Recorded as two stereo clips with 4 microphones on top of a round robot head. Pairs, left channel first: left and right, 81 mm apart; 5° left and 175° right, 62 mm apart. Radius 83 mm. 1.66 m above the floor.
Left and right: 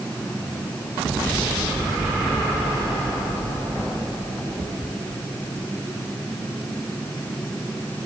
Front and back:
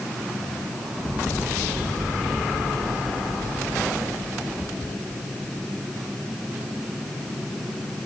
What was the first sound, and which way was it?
Only background noise.